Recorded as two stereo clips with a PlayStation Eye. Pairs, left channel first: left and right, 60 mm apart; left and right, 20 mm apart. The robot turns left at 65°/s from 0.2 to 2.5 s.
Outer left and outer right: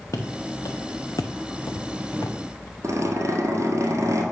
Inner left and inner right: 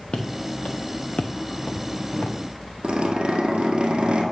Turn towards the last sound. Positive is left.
turn(degrees=-55)  # may be behind; listen again after turning